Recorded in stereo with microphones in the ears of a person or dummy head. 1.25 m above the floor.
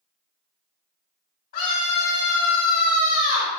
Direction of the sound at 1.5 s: 55° left (ahead or behind).